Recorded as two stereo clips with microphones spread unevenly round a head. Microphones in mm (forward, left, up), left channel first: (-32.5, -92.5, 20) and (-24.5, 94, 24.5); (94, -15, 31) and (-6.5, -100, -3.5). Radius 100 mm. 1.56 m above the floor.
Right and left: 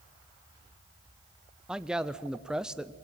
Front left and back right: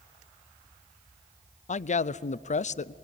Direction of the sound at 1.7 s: Straight ahead.